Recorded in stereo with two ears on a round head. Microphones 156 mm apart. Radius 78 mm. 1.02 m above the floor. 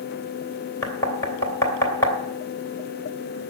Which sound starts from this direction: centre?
Knocking, at 0.8 s.